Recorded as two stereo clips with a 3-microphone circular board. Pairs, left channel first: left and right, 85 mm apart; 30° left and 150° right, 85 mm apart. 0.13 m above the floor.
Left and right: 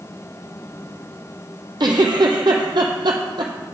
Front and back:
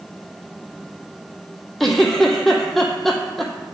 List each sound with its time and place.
1.8 s a giggle: 55° right, 0.8 m